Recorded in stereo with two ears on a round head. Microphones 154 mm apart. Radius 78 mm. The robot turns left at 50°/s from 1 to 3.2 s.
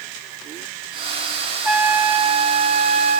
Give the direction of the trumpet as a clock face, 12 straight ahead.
12 o'clock.